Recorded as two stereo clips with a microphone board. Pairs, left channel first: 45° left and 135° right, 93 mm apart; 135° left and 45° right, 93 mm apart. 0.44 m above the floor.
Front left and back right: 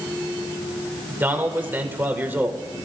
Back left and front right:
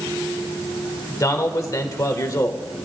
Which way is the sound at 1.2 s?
165° left.